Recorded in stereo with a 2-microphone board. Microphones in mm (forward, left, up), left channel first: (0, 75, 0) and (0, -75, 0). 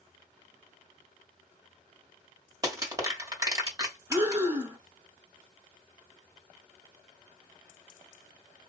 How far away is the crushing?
About 1.6 m.